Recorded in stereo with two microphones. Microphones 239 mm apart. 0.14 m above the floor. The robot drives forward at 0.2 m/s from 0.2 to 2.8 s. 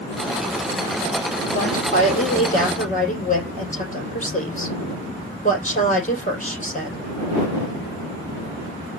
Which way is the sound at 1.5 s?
35° left (ahead or behind).